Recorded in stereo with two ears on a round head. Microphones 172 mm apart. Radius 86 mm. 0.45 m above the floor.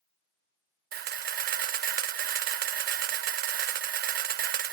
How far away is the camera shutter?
About 0.5 m.